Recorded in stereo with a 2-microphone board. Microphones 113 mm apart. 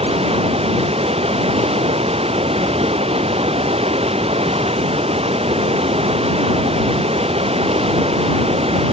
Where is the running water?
65° right (ahead or behind).